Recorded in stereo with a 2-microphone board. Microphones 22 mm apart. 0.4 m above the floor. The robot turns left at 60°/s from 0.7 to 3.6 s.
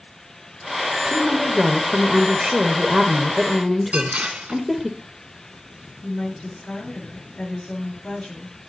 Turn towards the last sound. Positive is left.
turn(degrees=55)  # may be behind; listen again after turning